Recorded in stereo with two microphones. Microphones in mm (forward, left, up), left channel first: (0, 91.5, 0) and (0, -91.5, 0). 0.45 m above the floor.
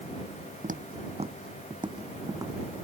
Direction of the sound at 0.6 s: 45° right (ahead or behind).